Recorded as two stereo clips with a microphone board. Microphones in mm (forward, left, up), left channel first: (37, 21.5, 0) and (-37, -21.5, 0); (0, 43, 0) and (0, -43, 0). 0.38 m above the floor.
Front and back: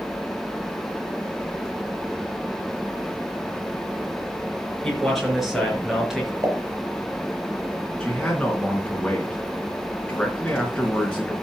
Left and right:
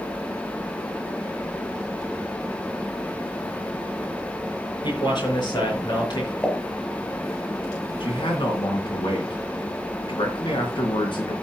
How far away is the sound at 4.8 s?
About 5 m.